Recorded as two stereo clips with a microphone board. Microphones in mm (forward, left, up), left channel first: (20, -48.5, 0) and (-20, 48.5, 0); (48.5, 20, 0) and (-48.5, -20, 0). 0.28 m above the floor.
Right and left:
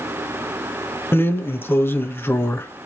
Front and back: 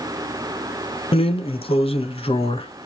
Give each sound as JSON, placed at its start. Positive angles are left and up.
{"t": 1.1, "sound": "a drawer", "azimuth_deg": 0, "distance_m": 0.7}